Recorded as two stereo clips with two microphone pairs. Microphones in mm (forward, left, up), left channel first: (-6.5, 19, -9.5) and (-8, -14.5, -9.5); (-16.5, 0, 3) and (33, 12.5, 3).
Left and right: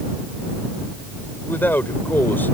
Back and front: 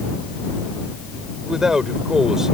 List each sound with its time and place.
1.4 s a man speaking: 95° left